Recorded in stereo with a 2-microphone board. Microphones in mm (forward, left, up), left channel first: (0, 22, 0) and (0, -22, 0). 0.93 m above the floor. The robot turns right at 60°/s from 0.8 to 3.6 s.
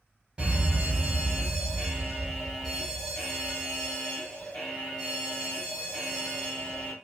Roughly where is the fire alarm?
Centre.